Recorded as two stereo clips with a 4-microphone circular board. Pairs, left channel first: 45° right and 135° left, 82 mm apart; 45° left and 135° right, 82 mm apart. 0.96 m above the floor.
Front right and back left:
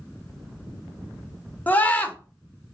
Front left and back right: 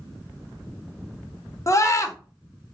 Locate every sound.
1.7 s a scream: 15° left, 0.6 m